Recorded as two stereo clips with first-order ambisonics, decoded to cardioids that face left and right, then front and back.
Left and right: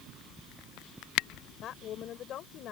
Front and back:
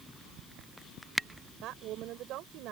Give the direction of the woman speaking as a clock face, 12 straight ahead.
7 o'clock.